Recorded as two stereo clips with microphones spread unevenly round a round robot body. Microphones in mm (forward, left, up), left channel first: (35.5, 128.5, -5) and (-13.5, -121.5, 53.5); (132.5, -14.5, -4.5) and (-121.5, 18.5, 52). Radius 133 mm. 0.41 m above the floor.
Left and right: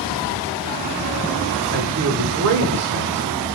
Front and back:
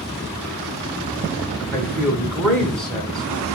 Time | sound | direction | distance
1.7 | a man speaking | 85° right | 1.1 m